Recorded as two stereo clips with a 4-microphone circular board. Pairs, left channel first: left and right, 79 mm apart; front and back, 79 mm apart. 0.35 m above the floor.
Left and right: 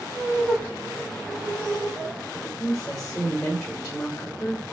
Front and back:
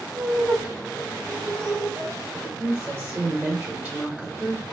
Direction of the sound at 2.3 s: 150° left.